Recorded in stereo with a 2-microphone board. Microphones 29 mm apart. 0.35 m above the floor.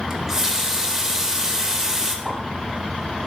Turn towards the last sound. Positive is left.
turn(degrees=-30)  # may be behind; listen again after turning